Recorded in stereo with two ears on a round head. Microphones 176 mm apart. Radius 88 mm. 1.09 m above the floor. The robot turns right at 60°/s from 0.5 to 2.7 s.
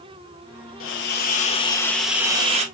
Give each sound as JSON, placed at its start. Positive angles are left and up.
{"t": 0.8, "sound": "a hiss", "azimuth_deg": 105, "distance_m": 1.0}